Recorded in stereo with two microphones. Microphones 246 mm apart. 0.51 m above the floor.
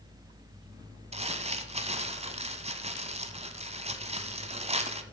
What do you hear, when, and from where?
1.1 s crumpling: 25° right (ahead or behind), 0.9 m